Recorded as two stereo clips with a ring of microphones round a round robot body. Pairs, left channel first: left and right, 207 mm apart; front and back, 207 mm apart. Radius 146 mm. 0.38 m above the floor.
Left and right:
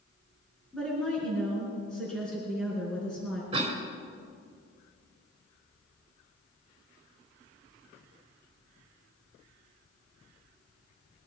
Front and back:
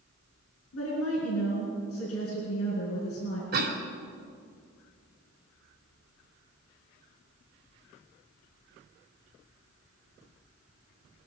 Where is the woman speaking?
5° left, 4.5 m.